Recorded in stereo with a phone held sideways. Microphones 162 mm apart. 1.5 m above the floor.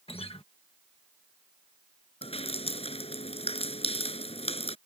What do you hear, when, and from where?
0.1 s a guitar: 35° left (ahead or behind)
2.2 s dripping: 40° left (ahead or behind)